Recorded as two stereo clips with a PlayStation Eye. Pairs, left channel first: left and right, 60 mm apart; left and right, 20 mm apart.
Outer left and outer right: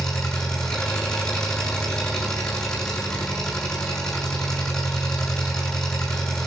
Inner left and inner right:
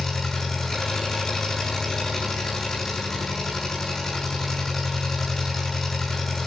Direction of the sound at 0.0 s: 10° left (ahead or behind).